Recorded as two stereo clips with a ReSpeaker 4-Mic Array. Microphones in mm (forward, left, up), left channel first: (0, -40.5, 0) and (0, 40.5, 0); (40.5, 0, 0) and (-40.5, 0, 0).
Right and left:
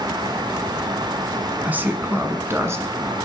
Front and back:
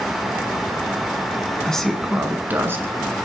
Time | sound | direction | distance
1.6 | a man speaking | 60° left | 1.4 m